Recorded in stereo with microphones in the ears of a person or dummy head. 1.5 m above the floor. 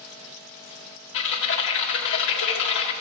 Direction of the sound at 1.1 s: 65° left (ahead or behind).